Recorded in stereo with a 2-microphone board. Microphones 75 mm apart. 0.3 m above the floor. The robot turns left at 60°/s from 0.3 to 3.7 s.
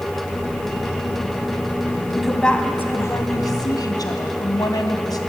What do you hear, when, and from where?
2.2 s a woman speaking: 175° right, 2 m; by 5.2 s 95° left, 2 m